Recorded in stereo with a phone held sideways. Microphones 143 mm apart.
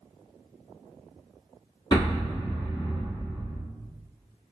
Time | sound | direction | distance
1.9 | an explosion | 30° left (ahead or behind) | 1.2 m